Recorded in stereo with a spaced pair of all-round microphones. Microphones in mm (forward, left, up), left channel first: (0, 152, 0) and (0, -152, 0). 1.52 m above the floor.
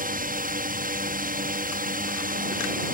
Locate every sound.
0.0 s a drone: 30° right (ahead or behind)